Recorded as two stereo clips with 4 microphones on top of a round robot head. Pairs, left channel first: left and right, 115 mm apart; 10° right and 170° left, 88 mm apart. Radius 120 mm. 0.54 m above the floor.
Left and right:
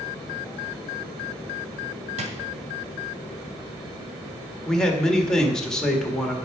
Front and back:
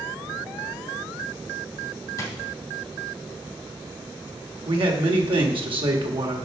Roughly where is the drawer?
Ahead right.